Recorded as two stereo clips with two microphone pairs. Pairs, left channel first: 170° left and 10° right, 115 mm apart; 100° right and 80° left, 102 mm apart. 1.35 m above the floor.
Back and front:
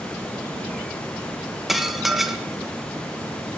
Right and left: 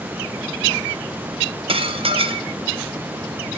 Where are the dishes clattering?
75° left, 0.7 m.